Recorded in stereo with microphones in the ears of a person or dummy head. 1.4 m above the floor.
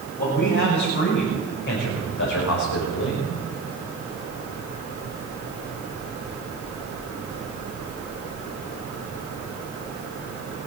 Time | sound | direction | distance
0.2 | a man speaking | 55° left (ahead or behind) | 6.5 m